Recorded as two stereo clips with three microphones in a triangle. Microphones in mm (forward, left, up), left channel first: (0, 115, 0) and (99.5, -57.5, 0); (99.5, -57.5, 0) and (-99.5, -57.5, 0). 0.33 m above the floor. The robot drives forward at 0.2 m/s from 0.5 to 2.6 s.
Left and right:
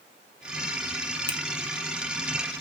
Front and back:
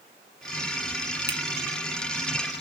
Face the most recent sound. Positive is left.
turn(degrees=150)